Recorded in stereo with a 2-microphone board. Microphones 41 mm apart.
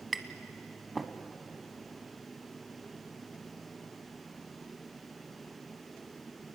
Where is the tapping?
Centre (ahead or behind), 1.1 m.